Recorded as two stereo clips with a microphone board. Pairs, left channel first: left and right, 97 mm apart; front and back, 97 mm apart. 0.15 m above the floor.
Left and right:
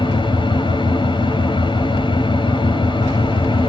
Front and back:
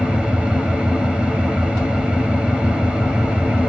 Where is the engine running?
105° left, 2.5 m.